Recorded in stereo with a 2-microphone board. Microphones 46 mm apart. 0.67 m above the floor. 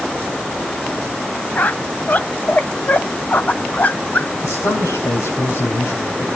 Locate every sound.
1.6 s a squeak: 40° left (ahead or behind), 0.9 m
4.4 s a man speaking: 75° left (ahead or behind), 5.5 m